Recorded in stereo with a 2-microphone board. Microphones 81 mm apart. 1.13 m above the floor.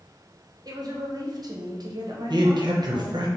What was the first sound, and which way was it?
A woman speaking, 55° right (ahead or behind).